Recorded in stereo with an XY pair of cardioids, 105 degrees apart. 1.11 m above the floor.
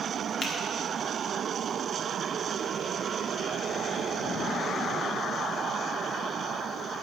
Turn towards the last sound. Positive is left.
turn(degrees=50)